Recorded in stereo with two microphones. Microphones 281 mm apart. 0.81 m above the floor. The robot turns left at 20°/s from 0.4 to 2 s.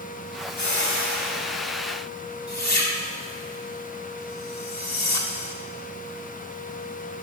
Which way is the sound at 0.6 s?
80° left.